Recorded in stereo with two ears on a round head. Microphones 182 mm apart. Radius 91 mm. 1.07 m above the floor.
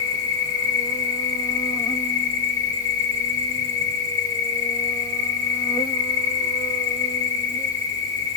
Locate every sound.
0.0 s an insect: 20° left (ahead or behind), 1.0 m